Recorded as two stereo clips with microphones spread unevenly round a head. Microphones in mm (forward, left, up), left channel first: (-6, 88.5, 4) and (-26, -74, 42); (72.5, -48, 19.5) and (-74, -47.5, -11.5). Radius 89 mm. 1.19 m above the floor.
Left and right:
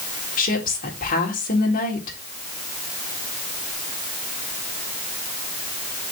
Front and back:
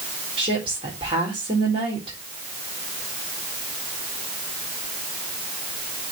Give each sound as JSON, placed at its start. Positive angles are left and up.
{"t": 0.4, "sound": "a woman speaking", "azimuth_deg": 120, "distance_m": 4.0}